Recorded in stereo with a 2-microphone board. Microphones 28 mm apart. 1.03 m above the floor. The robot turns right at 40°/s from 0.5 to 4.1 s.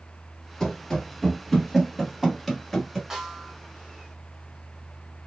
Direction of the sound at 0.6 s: 20° left (ahead or behind).